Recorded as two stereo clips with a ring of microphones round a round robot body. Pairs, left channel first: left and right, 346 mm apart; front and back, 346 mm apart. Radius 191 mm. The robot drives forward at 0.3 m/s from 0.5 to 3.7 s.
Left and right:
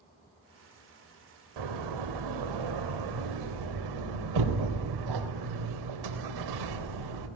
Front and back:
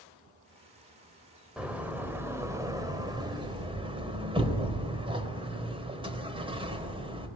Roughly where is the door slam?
Right.